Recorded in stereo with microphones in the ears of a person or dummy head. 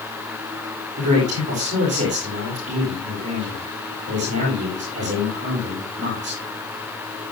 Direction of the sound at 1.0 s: 35° right (ahead or behind).